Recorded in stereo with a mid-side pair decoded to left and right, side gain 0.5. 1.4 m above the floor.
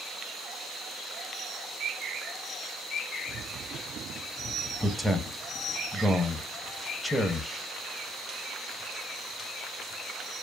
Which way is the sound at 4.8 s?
10° left.